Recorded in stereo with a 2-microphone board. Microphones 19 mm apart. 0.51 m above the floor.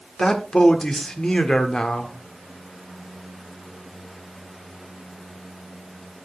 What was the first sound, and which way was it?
A man speaking, 45° left (ahead or behind).